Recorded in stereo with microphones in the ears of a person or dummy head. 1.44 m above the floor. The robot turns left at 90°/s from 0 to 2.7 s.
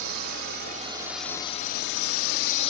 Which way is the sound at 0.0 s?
60° right (ahead or behind).